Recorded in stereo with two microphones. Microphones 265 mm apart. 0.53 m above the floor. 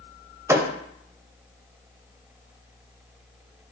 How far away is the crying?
No crying in this recording.